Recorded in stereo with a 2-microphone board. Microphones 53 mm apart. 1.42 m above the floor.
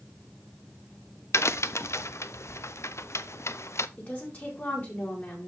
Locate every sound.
1.3 s a crack: 60° left (ahead or behind), 0.5 m
4.0 s a woman speaking: 35° left (ahead or behind), 4.5 m